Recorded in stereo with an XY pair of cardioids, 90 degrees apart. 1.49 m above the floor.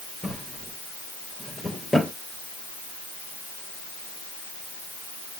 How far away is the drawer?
About 3 m.